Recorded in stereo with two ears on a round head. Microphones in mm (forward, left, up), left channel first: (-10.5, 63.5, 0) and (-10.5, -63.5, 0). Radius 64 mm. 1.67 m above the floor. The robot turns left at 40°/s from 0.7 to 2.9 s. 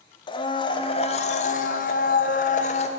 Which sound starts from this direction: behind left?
A blender, at 0.3 s.